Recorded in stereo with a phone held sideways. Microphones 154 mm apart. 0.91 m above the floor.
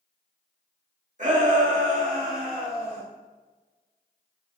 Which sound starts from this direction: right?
A shout, at 1.2 s.